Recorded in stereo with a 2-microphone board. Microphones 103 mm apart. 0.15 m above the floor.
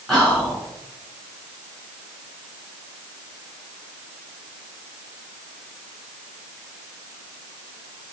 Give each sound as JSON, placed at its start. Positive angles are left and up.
{"t": 0.1, "sound": "whispering", "side_deg": 0, "distance_m": 1.6}